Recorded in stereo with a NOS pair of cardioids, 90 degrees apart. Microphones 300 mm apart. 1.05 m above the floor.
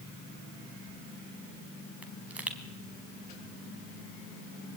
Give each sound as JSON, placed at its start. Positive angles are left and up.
{"t": 2.0, "sound": "a pop", "azimuth_deg": -5, "distance_m": 4.0}